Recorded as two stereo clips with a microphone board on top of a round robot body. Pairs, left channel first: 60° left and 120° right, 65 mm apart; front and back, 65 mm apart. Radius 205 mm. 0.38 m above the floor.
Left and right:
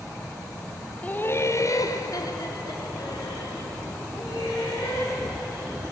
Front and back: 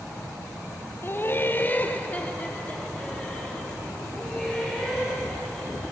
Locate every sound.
1.0 s laughter: 10° left, 0.8 m; by 5.9 s 80° left, 4.5 m